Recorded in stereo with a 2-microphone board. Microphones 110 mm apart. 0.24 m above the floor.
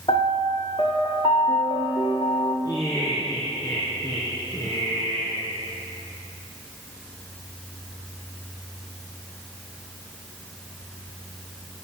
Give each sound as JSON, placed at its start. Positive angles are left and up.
{"t": 0.1, "sound": "a piano", "side_deg": 50, "distance_m": 3.0}
{"t": 2.6, "sound": "laughter", "side_deg": 35, "distance_m": 2.5}